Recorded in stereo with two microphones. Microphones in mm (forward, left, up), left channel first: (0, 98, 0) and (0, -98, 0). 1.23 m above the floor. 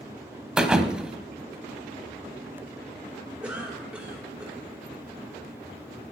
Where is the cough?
5° right (ahead or behind), 4 m.